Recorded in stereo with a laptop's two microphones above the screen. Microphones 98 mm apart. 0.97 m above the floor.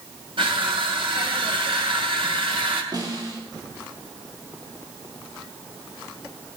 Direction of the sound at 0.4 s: 65° right (ahead or behind).